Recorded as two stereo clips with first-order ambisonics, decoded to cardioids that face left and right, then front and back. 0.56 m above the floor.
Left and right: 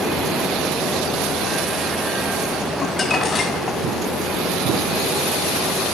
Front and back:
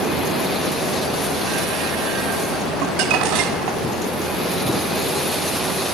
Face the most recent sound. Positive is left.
turn(degrees=165)